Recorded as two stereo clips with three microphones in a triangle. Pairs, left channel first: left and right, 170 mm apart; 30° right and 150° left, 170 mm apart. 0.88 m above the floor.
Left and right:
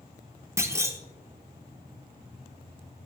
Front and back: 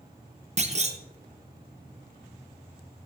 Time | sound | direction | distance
0.6 | a clunk | 160° right | 0.8 m